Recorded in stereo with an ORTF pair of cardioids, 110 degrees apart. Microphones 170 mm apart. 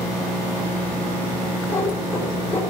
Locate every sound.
1.7 s a cat meowing: 15° left, 8 m